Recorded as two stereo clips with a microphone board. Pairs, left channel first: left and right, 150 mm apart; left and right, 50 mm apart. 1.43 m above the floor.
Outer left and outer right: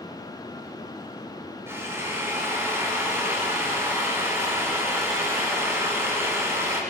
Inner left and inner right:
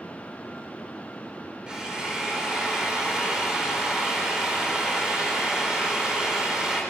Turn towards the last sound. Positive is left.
turn(degrees=-15)  # may be behind; listen again after turning